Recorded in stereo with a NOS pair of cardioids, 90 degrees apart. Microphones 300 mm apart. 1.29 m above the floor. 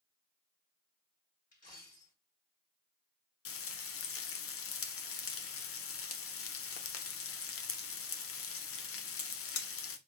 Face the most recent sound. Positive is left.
turn(degrees=50)